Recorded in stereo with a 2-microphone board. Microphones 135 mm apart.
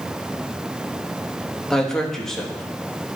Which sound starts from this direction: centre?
A man speaking, at 1.7 s.